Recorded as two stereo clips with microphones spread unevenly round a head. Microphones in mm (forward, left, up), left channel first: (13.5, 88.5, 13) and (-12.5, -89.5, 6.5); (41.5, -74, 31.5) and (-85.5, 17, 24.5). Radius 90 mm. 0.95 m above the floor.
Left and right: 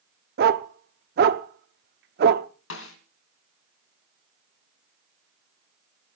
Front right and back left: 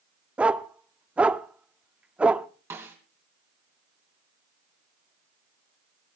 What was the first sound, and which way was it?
A dog barking, 130° right.